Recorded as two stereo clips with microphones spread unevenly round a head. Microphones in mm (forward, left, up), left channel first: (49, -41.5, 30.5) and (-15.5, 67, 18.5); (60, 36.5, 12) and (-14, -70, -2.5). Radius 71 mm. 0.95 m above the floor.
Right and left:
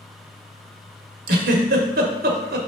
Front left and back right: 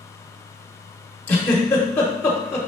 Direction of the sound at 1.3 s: 135° left.